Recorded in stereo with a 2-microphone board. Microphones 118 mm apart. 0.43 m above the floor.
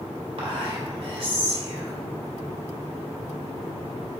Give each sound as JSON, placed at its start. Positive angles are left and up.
{"t": 0.4, "sound": "whispering", "side_deg": -55, "distance_m": 1.9}